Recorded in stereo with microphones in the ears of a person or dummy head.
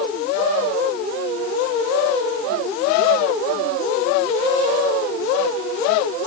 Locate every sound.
Only background noise.